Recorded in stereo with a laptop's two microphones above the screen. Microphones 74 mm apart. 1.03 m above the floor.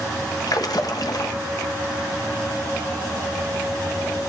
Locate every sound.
0.5 s a splash: 60° left (ahead or behind), 0.9 m